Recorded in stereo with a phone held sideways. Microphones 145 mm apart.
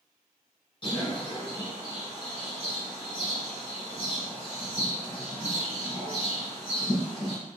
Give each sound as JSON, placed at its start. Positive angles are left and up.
{"t": 0.8, "sound": "a bird", "side_deg": 40, "distance_m": 1.1}